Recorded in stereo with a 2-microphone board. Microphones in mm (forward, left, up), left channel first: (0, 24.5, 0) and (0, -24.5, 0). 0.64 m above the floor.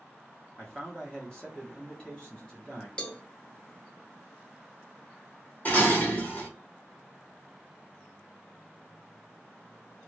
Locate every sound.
0.6 s a man speaking: 20° left (ahead or behind), 0.9 m
3.0 s a cowbell: 20° left (ahead or behind), 0.6 m
5.7 s dishes clattering: 35° left (ahead or behind), 1.5 m